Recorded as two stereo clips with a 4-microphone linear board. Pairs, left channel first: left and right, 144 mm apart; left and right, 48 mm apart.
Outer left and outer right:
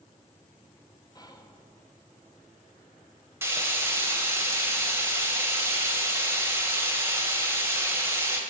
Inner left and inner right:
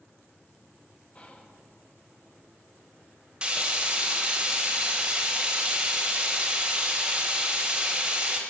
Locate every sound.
1.1 s whispering: 25° left (ahead or behind), 1.3 m
3.4 s frying: 15° right (ahead or behind), 1.8 m